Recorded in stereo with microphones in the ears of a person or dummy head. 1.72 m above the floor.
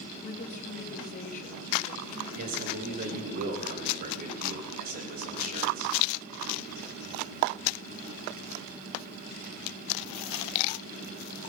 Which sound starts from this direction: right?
A man speaking, at 2.4 s.